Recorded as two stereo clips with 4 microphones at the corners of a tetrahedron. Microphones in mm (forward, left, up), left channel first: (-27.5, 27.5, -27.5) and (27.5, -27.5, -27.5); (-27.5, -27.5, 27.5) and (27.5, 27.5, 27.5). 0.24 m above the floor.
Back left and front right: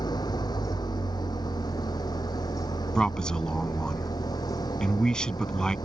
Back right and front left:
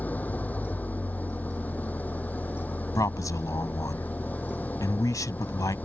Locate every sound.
0.0 s an engine running: 155° left
3.0 s a man speaking: 150° right